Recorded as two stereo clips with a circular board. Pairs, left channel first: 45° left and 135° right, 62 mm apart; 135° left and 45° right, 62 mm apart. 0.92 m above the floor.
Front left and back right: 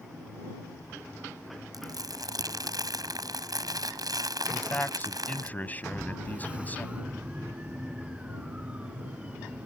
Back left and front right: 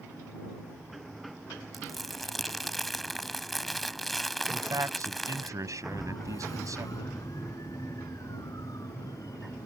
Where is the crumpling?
135° right.